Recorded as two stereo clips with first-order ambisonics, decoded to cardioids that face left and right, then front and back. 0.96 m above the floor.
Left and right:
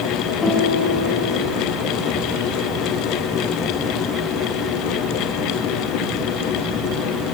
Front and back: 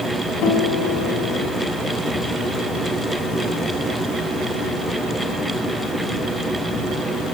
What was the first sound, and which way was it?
A guitar, 30° left.